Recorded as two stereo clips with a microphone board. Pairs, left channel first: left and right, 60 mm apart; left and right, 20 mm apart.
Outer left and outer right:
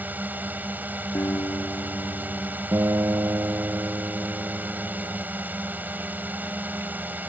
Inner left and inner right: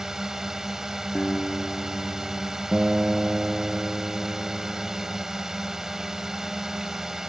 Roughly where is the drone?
Right.